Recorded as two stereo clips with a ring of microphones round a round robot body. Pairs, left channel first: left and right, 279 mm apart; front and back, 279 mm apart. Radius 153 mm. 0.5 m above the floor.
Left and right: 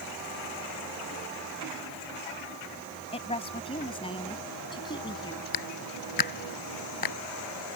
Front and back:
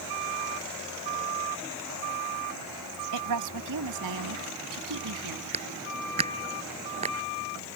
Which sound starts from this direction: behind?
A woman speaking, at 3.1 s.